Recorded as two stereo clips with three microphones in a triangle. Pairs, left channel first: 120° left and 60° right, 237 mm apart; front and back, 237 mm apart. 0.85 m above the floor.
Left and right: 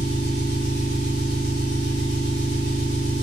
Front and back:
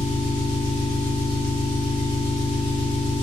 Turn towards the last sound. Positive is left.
turn(degrees=-40)